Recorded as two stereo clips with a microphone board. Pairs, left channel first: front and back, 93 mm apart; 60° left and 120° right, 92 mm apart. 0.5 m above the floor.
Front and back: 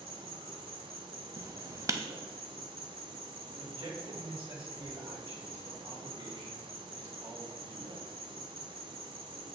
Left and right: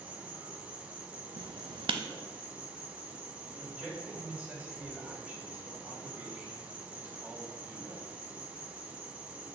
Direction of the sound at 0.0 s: 165° left.